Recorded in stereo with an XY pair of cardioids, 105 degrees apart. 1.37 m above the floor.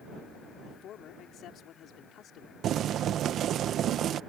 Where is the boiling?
70° right.